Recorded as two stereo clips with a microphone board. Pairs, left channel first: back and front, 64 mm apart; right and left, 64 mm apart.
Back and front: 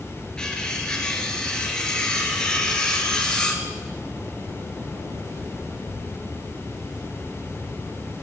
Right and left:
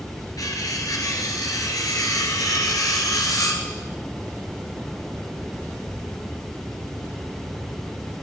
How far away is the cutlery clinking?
About 1.8 m.